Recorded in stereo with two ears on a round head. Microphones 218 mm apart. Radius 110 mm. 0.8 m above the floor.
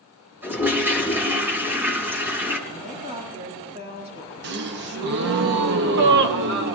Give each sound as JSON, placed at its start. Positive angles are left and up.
{"t": 0.4, "sound": "a toilet flushing", "side_deg": -10, "distance_m": 3.5}
{"t": 2.7, "sound": "a woman speaking", "side_deg": -25, "distance_m": 8.0}
{"t": 4.4, "sound": "a gasp", "side_deg": -45, "distance_m": 1.0}